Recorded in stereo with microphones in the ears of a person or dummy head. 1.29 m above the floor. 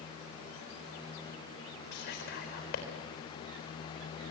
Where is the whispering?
55° left (ahead or behind), 4.5 m.